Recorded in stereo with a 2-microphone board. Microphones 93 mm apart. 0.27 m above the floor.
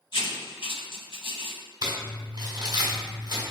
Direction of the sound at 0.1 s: 70° left (ahead or behind).